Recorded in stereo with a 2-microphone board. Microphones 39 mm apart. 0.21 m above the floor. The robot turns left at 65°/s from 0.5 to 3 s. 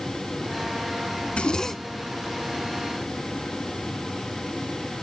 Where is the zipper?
40° left, 0.5 m; by 2.1 s 15° right, 0.5 m.